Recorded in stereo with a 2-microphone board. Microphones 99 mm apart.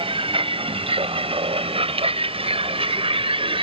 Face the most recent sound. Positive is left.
turn(degrees=-70)  # may be behind; listen again after turning